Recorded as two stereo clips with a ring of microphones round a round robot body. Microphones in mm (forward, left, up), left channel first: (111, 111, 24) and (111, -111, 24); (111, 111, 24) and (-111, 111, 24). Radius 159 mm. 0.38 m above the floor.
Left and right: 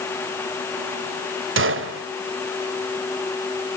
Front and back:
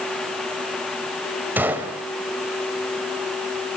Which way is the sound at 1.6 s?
100° right.